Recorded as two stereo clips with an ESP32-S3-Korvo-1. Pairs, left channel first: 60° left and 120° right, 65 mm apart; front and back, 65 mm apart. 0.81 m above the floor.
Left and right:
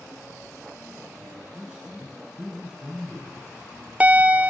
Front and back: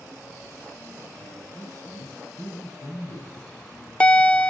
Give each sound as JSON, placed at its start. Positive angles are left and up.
{"t": 1.2, "sound": "a man speaking", "azimuth_deg": -30, "distance_m": 6.5}
{"t": 3.4, "sound": "a bell", "azimuth_deg": -65, "distance_m": 0.5}